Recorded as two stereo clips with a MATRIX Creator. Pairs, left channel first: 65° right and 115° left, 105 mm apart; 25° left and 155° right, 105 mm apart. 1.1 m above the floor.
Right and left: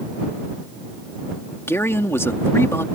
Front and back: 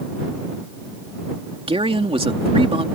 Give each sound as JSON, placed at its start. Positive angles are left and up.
{"t": 1.7, "sound": "a man speaking", "azimuth_deg": -135}